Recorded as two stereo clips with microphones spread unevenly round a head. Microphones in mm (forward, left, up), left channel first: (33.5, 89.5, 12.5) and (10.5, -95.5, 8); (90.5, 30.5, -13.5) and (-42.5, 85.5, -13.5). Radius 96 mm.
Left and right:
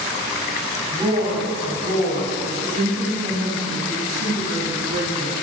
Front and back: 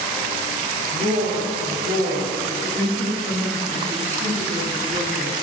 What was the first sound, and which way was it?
A woman speaking, 170° right.